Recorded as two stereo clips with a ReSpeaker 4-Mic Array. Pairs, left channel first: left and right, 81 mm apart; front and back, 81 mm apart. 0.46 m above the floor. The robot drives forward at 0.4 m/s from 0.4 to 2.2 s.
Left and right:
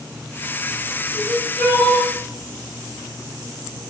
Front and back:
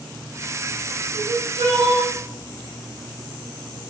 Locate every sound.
1.1 s crying: 160° left, 2 m